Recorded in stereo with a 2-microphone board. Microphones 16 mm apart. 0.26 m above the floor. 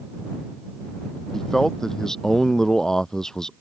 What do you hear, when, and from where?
1.3 s a man speaking: 25° left (ahead or behind); by 3.5 s 35° left (ahead or behind)